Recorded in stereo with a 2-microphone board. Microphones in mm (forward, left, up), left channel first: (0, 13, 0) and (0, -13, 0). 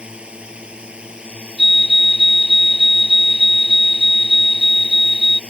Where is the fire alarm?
30° right (ahead or behind).